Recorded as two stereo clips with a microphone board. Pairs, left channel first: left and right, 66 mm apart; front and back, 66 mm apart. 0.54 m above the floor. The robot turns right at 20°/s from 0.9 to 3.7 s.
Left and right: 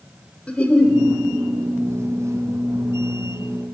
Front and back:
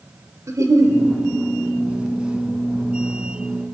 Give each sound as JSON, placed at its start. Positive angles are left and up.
{"t": 0.5, "sound": "a giggle", "azimuth_deg": 160, "distance_m": 1.4}